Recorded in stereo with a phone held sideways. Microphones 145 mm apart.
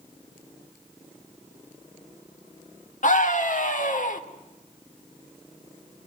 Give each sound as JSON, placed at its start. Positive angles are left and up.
{"t": 3.0, "sound": "a scream", "side_deg": 60, "distance_m": 1.8}